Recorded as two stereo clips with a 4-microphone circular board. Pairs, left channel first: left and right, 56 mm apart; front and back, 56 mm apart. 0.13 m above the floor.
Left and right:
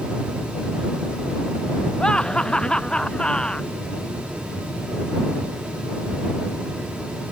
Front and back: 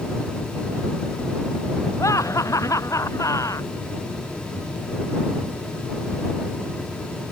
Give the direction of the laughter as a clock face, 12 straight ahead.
12 o'clock.